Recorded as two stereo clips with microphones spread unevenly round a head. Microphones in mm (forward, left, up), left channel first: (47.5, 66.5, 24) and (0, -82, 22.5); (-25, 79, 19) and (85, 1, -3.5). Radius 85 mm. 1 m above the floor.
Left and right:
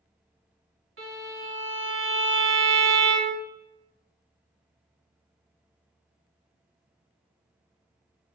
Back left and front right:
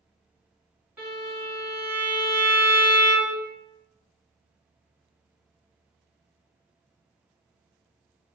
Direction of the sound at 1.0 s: 125° right.